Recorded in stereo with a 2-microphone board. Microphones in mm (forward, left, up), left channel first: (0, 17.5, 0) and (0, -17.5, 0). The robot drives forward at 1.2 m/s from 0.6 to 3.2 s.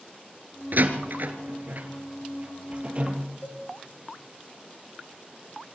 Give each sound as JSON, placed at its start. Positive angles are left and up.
{"t": 0.7, "sound": "a door slam", "side_deg": -60, "distance_m": 2.0}
{"t": 3.4, "sound": "a cowbell", "side_deg": 70, "distance_m": 3.5}